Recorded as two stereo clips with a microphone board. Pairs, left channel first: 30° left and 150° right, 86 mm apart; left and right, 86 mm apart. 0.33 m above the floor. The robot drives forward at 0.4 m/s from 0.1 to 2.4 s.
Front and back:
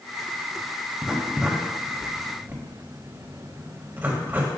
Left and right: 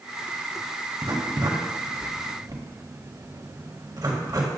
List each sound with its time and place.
1.0 s writing: 65° right, 1.7 m; by 4.5 s 90° right, 1.6 m